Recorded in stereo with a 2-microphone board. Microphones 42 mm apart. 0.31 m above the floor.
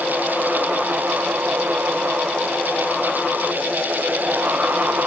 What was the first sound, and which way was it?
Only background noise.